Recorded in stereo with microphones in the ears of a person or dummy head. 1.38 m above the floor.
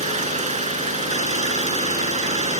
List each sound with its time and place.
0.0 s an engine running: 35° right (ahead or behind)